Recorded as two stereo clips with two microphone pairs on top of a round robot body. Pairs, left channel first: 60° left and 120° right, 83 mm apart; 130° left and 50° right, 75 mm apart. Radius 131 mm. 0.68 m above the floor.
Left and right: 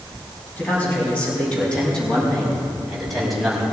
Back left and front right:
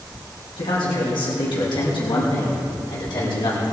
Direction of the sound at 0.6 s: 135° left.